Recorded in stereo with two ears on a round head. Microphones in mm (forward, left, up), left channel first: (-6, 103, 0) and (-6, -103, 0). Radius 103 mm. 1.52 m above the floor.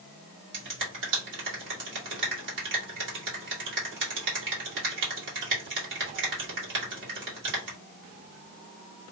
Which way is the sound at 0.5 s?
55° right (ahead or behind).